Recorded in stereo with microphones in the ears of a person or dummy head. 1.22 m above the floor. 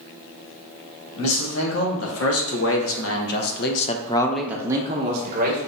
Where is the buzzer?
I don't hear a buzzer.